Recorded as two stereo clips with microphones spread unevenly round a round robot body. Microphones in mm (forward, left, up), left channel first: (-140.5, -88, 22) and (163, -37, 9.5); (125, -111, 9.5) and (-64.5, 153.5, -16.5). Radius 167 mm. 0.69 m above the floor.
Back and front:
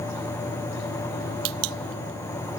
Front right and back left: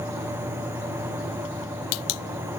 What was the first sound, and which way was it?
Only background noise.